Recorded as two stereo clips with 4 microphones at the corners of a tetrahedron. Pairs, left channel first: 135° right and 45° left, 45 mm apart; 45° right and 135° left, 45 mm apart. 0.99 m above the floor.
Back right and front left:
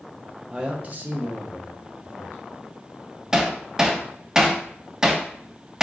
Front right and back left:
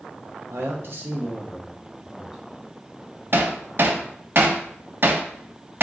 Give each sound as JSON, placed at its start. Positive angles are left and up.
{"t": 0.5, "sound": "a man speaking", "azimuth_deg": 120, "distance_m": 0.7}
{"t": 3.3, "sound": "hammering", "azimuth_deg": 120, "distance_m": 0.6}